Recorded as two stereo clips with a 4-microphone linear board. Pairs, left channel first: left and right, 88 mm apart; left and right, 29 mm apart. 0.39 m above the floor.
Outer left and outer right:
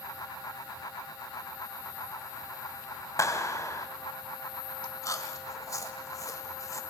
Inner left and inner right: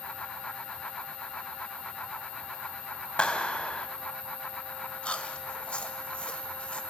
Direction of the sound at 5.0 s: 40° left (ahead or behind).